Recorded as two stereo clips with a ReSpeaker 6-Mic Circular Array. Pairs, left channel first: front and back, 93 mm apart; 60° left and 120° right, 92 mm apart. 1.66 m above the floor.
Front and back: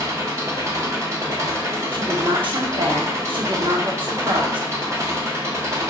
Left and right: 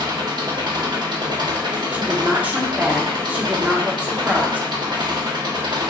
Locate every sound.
0.0 s an engine running: 130° right, 0.9 m
1.9 s a woman speaking: 165° left, 1.0 m